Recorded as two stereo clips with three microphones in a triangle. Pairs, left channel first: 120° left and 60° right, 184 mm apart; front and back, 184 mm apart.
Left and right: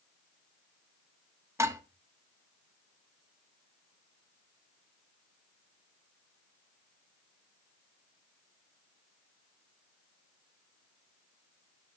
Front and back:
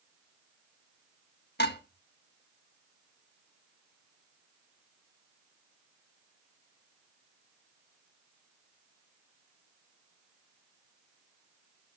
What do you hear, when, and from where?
1.6 s dishes clattering: 15° left, 1.5 m